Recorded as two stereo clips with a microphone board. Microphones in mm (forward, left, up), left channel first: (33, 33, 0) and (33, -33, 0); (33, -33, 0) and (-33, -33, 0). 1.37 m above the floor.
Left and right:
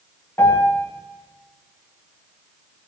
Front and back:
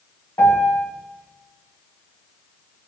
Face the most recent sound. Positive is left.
turn(degrees=40)